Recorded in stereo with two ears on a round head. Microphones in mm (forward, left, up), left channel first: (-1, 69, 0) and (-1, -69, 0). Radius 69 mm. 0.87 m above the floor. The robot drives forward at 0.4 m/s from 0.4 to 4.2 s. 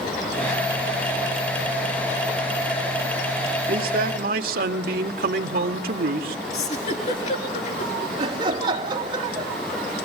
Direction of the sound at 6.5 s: 45° left (ahead or behind).